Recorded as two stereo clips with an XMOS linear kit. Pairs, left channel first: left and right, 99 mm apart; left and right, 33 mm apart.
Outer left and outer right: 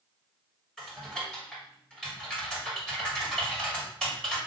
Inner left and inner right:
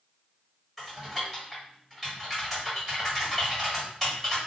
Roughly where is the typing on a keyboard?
Centre.